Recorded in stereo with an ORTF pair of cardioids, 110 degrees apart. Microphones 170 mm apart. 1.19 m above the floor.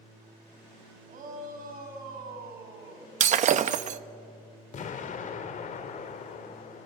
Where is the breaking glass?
50° right, 0.9 m.